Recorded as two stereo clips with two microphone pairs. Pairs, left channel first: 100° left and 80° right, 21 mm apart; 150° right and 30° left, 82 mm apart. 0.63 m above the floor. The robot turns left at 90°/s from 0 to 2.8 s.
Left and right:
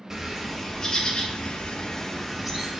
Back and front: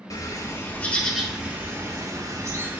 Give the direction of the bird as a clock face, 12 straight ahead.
5 o'clock.